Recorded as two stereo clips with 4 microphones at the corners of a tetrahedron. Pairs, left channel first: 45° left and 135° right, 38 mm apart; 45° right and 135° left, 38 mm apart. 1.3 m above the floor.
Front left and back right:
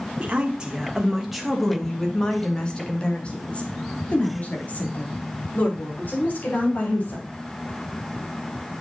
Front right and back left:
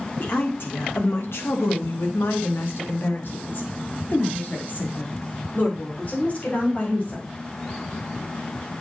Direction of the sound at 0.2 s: 80° right.